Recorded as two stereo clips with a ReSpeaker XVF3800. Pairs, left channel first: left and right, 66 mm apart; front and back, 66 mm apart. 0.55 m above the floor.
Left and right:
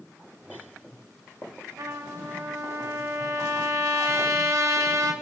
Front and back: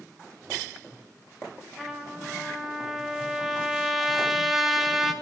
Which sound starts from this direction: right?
A trumpet, at 1.8 s.